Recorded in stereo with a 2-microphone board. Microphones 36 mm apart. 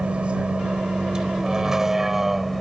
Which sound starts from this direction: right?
A vehicle, at 0.0 s.